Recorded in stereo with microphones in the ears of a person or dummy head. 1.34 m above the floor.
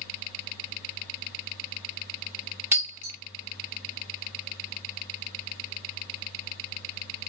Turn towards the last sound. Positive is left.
turn(degrees=-10)  # may be behind; listen again after turning